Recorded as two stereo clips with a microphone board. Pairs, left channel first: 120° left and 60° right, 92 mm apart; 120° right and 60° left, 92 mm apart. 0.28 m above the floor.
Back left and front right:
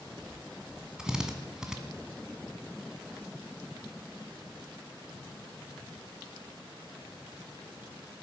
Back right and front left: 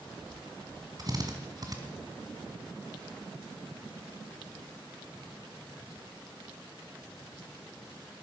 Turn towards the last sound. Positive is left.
turn(degrees=20)